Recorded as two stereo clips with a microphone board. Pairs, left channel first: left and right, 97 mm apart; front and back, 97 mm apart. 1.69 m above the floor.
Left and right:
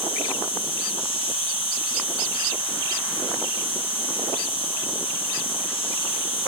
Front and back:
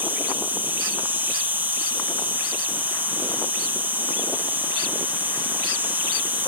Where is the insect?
110° left, 4 m.